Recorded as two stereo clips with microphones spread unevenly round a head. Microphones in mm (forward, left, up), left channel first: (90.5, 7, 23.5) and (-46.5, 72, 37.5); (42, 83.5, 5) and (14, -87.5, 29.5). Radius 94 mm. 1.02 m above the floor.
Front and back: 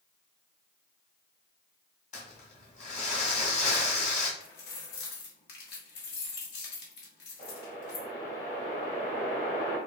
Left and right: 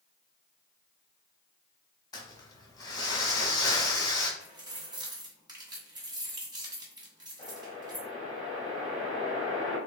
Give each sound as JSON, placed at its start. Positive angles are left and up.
{"t": 2.1, "sound": "crumpling", "azimuth_deg": 10, "distance_m": 1.6}
{"t": 4.4, "sound": "keys jangling", "azimuth_deg": -35, "distance_m": 1.4}
{"t": 7.4, "sound": "a whoosh", "azimuth_deg": 15, "distance_m": 2.0}